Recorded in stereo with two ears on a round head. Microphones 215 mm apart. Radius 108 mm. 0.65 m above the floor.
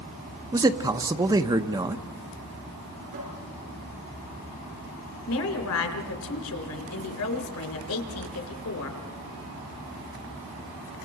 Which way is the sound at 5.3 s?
65° left (ahead or behind).